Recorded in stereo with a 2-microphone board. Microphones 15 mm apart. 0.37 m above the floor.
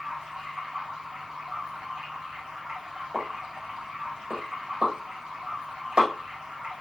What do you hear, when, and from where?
0.0 s running water: 70° right (ahead or behind), 5.5 m
3.1 s a pop: 70° right (ahead or behind), 6.5 m